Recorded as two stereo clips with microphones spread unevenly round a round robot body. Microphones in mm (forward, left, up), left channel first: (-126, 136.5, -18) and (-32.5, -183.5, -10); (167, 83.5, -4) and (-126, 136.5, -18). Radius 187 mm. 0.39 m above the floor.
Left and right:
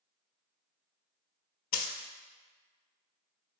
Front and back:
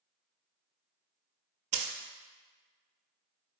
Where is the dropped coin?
140° left, 0.5 m.